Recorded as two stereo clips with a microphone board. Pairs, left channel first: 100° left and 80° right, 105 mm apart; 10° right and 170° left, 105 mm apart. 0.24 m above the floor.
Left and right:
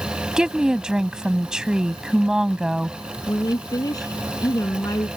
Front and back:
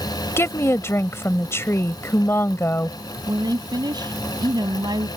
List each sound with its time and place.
0.4 s a woman speaking: 5° right
3.3 s a woman speaking: 140° left